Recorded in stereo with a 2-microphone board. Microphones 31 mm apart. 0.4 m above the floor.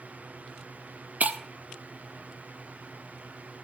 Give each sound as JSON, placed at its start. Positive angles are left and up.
{"t": 1.2, "sound": "breaking glass", "side_deg": -45, "distance_m": 0.6}